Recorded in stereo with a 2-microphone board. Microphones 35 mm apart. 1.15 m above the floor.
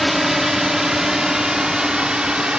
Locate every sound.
0.0 s a drone: 5° right (ahead or behind); by 2.6 s 25° right (ahead or behind)